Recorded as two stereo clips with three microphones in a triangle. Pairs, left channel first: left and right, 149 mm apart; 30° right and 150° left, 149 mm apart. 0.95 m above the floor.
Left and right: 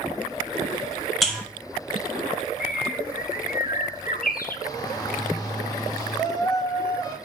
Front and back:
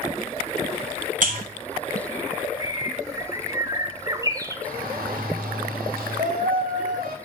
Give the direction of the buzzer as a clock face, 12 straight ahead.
6 o'clock.